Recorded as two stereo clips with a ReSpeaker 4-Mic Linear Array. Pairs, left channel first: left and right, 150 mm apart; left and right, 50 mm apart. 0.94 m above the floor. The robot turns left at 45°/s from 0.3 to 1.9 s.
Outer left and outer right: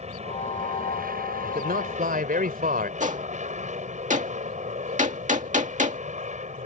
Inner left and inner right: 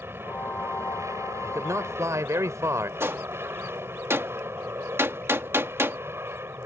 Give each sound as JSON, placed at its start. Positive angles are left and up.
{"t": 0.0, "sound": "an aircraft", "azimuth_deg": -50}
{"t": 1.4, "sound": "a man speaking", "side_deg": -75}
{"t": 3.0, "sound": "a gunshot", "side_deg": -55}